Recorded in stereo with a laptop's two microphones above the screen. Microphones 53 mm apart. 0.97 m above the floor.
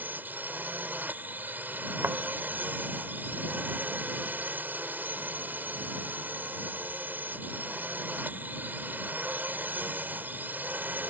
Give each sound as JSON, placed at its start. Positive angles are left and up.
{"t": 0.0, "sound": "a drone", "side_deg": -35}
{"t": 2.0, "sound": "a thud", "side_deg": -55}